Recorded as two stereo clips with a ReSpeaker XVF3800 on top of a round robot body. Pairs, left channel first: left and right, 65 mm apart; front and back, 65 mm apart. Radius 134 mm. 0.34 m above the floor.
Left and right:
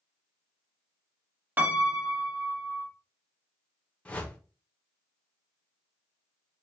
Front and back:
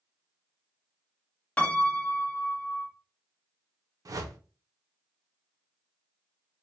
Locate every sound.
1.6 s a piano: 55° right, 1.0 m
4.0 s a whoosh: 160° left, 0.6 m